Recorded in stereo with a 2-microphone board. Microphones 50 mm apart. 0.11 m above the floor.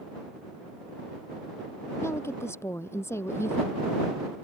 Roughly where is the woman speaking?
Left.